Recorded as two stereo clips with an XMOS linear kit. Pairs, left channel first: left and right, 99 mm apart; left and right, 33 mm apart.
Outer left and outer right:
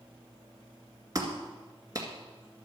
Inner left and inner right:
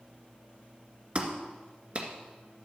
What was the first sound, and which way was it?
A clap, 35° right (ahead or behind).